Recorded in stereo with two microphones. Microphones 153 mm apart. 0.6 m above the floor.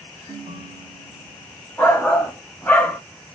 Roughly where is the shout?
Centre.